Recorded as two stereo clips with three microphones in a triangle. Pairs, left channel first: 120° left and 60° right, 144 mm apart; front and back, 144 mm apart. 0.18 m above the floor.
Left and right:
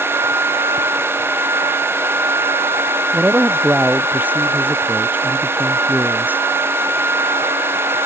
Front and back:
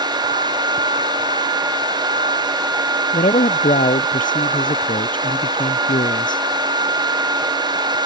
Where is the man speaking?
20° left.